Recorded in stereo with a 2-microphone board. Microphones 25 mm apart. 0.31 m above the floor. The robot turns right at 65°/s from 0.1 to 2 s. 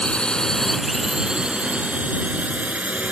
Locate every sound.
0.0 s a drone: 45° left (ahead or behind); by 3.1 s 65° right (ahead or behind)